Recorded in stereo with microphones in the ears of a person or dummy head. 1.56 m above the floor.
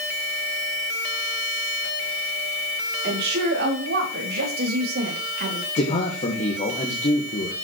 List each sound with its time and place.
3.0 s a woman speaking: 50° right (ahead or behind), 4.5 m
5.8 s a man speaking: 40° left (ahead or behind), 1.7 m